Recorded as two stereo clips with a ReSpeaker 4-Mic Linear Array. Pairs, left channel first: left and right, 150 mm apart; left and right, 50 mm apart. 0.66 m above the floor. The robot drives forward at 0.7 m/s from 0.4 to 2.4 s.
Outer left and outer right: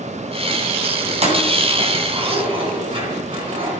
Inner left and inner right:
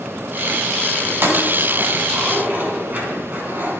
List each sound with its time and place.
1.1 s keys jangling: 50° right (ahead or behind), 3 m; by 3.7 s 40° right (ahead or behind), 3.5 m